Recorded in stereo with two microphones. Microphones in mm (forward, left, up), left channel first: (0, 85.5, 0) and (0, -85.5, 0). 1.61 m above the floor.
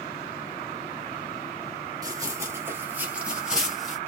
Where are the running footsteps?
20° right (ahead or behind), 1.7 m; by 4.0 s centre (ahead or behind), 1.9 m.